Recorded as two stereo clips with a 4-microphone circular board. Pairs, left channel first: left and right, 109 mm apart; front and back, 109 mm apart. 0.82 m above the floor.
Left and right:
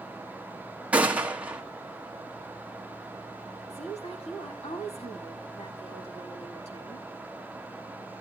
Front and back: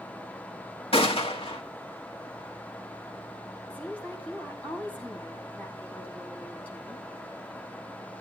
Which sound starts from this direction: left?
A woman speaking, at 3.7 s.